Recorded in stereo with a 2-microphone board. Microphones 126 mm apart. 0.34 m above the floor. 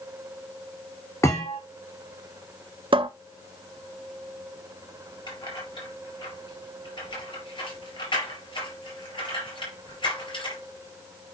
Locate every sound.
1.2 s a thud: 25° left (ahead or behind), 3.5 m
2.9 s a cupboard door: 45° right (ahead or behind), 0.6 m
5.3 s keys jangling: 40° left (ahead or behind), 4 m